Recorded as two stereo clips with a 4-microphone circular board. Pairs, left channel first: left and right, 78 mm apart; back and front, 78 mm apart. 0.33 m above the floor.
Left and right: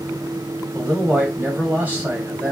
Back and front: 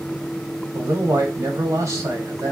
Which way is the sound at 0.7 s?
30° right.